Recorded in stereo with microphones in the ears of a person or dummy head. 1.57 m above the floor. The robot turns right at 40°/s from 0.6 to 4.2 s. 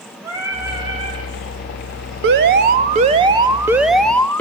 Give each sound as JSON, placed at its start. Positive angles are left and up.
{"t": 0.2, "sound": "singing", "side_deg": -10, "distance_m": 6.5}
{"t": 2.2, "sound": "an alarm", "azimuth_deg": -75, "distance_m": 1.7}